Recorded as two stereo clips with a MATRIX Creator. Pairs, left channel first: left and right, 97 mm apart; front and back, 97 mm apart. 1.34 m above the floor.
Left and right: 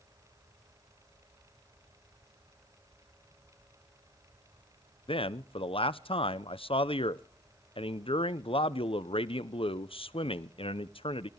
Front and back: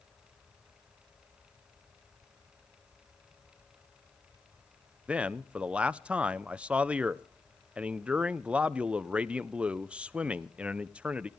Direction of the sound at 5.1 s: 100° left.